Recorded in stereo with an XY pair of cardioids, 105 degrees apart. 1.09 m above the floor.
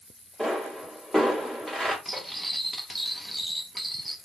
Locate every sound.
0.4 s a pop: 10° left, 1.7 m
2.0 s cutlery clinking: straight ahead, 0.8 m